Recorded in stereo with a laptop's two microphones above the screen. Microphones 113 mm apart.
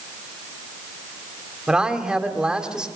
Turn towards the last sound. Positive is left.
turn(degrees=-10)  # may be behind; listen again after turning